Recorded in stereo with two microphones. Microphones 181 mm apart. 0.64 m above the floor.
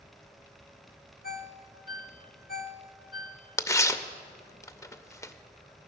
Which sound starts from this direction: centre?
Tearing paper, at 3.6 s.